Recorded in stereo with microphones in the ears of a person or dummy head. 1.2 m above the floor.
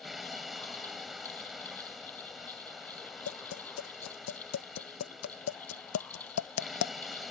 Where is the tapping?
80° left.